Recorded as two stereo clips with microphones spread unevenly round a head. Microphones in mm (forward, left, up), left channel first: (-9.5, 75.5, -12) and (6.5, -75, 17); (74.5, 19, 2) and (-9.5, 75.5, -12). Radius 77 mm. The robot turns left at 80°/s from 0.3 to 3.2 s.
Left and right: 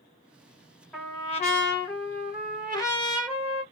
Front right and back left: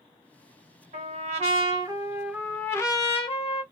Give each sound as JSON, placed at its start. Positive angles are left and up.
{"t": 0.9, "sound": "a trumpet", "azimuth_deg": 180, "distance_m": 1.2}